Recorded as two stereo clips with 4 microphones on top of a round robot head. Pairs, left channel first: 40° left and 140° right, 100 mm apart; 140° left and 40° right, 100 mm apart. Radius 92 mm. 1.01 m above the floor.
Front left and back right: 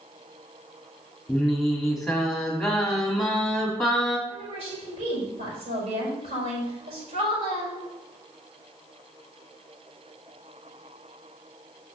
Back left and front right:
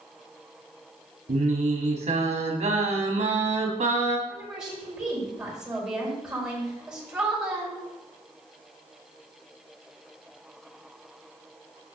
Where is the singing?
50° right, 1.8 m.